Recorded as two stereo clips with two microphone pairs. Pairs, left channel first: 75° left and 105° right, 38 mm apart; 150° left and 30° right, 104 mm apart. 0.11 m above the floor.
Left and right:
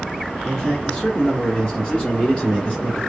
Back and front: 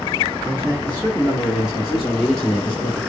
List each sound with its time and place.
0.5 s a man speaking: 10° left, 2 m; by 3.0 s 95° left, 2.0 m